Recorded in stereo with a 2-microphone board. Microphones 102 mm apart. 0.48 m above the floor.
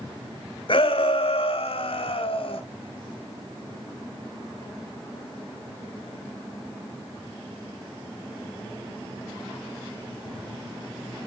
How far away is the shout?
About 1.6 m.